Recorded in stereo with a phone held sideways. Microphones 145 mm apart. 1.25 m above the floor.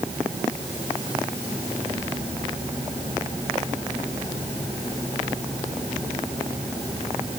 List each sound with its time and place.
Only background noise.